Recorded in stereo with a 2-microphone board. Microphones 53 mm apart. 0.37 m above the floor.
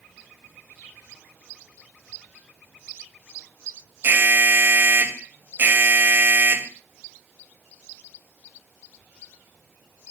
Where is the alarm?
45° right (ahead or behind), 2 m.